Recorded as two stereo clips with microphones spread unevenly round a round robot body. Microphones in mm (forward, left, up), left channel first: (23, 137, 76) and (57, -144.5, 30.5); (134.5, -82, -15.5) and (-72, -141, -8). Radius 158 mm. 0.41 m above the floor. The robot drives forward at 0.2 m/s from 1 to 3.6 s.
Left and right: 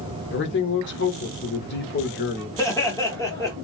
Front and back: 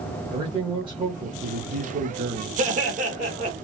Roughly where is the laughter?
Behind.